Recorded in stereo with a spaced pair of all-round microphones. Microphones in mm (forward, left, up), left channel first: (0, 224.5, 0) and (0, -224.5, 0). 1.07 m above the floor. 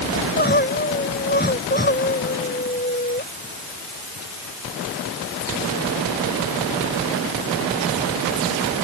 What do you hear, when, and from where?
0.1 s crying: 20° left (ahead or behind)